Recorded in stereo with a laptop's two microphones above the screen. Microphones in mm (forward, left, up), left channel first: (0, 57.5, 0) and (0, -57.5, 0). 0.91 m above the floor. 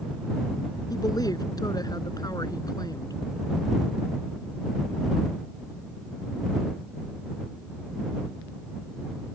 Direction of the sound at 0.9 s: 35° left (ahead or behind).